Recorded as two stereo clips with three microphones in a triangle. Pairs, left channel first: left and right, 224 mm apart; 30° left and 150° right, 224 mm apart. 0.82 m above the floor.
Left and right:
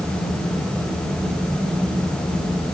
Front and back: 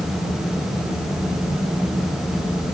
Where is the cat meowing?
I don't hear a cat meowing.